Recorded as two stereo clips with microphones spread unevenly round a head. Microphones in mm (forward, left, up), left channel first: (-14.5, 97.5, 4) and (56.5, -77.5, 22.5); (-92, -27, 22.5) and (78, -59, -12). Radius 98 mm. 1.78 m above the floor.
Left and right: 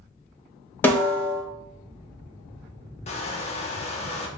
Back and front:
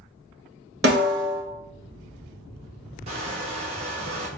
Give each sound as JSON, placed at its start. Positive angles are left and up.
{"t": 0.8, "sound": "a snare drum", "azimuth_deg": 30, "distance_m": 1.0}
{"t": 3.1, "sound": "crushing", "azimuth_deg": 55, "distance_m": 0.7}